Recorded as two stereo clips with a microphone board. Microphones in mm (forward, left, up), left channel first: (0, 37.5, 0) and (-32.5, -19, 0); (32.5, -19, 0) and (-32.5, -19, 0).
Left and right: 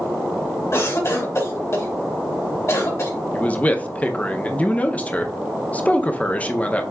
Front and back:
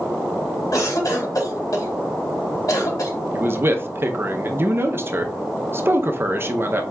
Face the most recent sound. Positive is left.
turn(degrees=130)